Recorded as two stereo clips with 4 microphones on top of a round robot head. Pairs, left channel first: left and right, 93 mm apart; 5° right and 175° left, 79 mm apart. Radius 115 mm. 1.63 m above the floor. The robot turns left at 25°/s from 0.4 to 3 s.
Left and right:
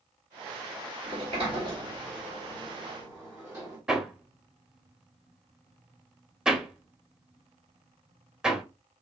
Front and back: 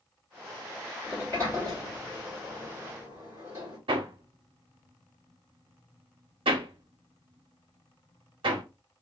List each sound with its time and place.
1.0 s a sliding door: 70° right, 1.3 m; by 3.8 s 120° right, 1.3 m
3.9 s hammering: 175° right, 0.7 m